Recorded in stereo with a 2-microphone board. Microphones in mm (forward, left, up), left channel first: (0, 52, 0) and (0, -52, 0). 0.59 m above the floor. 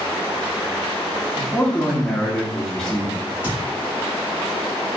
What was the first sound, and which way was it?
A man speaking, 10° left (ahead or behind).